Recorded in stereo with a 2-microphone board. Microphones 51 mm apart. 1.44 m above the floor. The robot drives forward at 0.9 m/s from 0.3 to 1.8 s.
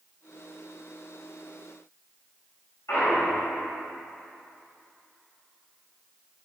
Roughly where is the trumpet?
No trumpet in this recording.